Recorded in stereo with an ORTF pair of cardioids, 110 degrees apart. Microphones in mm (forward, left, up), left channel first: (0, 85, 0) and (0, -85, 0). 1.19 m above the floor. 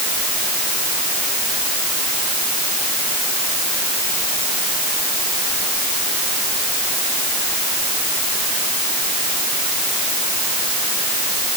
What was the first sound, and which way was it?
Only background noise.